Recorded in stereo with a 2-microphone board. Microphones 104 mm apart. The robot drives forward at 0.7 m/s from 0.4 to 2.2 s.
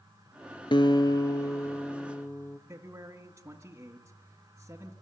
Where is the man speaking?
25° right (ahead or behind), 1.7 m.